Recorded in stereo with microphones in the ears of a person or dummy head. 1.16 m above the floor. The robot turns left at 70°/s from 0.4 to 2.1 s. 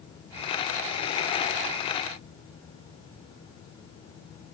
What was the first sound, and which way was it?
Only background noise.